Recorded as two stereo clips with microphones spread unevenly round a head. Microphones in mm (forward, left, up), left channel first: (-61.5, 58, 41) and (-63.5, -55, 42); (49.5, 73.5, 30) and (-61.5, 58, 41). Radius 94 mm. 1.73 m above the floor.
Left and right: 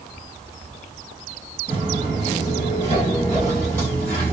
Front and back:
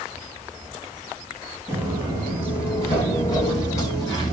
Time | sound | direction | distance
1.7 | footsteps | 85° right | 2.0 m